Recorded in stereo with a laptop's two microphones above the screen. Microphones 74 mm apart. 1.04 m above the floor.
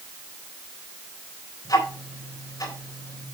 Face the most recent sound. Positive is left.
turn(degrees=65)  # may be behind; listen again after turning